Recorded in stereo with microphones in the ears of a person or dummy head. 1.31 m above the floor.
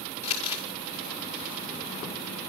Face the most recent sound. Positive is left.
turn(degrees=40)  # may be behind; listen again after turning